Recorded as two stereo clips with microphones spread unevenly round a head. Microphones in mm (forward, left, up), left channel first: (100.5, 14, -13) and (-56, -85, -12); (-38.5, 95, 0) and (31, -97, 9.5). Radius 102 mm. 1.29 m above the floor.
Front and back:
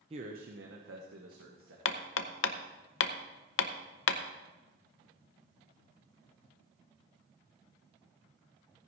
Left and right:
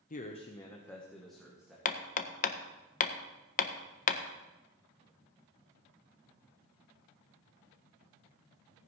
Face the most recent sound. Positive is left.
turn(degrees=60)